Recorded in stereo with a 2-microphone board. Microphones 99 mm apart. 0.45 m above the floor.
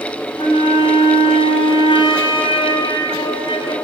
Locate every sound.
0.4 s a flute: 65° left (ahead or behind), 2.5 m